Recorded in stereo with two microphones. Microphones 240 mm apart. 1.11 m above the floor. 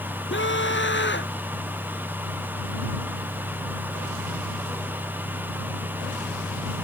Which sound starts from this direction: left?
A scream, at 0.3 s.